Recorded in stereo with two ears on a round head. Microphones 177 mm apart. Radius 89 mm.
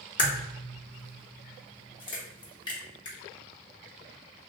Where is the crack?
25° left (ahead or behind), 0.8 m.